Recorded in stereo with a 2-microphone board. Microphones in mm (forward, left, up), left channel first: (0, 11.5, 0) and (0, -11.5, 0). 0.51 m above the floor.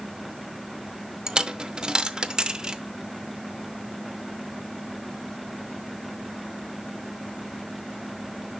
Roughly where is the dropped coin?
Right.